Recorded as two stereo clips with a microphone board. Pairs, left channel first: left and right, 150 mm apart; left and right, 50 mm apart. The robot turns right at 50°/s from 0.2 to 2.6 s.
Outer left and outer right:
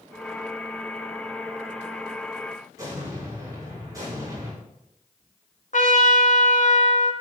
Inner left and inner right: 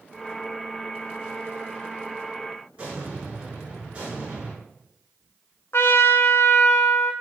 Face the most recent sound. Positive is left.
turn(degrees=65)  # may be behind; listen again after turning